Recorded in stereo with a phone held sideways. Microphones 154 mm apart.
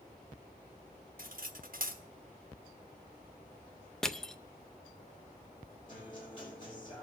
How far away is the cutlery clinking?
About 1.1 m.